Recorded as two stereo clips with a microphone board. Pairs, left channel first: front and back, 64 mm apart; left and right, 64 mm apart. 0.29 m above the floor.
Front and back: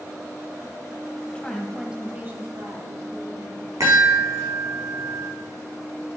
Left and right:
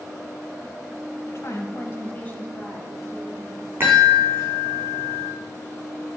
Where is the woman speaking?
70° left, 1.5 m; by 3.7 s 175° right, 2.5 m.